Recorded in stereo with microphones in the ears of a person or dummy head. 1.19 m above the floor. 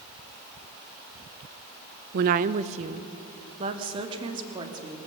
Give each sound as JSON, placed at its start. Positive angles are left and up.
{"t": 2.1, "sound": "a woman speaking", "side_deg": -55, "distance_m": 0.6}